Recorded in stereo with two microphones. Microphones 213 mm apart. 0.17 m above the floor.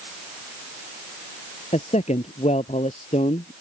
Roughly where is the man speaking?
Left.